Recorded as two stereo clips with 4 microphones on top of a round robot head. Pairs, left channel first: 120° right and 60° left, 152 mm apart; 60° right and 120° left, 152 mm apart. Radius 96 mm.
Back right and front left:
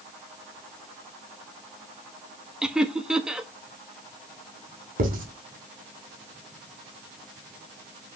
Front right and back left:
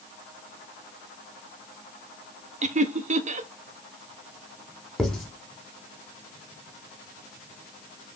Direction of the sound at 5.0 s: 30° left.